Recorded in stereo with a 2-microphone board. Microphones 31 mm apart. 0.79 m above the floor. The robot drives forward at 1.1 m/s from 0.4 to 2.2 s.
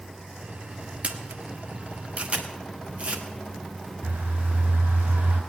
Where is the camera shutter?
45° right (ahead or behind), 1.2 m; by 3.2 s 40° right (ahead or behind), 1.3 m.